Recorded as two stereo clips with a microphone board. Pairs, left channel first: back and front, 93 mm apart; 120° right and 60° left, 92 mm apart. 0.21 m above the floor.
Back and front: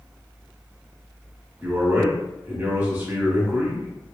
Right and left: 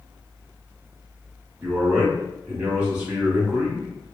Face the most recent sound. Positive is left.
turn(degrees=15)